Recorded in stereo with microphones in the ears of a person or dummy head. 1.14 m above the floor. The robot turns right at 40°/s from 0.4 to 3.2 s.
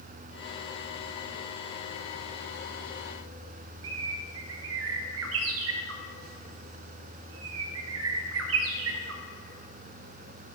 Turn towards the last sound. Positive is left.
turn(degrees=-70)  # may be behind; listen again after turning